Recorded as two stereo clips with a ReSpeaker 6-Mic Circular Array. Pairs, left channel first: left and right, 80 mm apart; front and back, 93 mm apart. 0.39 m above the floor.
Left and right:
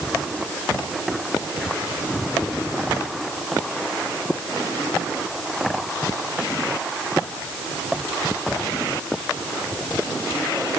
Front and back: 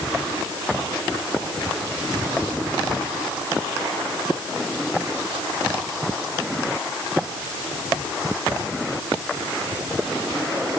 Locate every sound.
Only background noise.